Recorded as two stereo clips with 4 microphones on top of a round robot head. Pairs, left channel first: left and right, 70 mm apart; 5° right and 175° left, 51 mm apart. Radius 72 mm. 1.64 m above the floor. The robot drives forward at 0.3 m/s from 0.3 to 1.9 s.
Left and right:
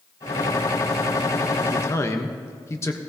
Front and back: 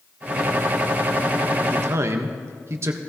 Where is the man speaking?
140° left, 1.0 m.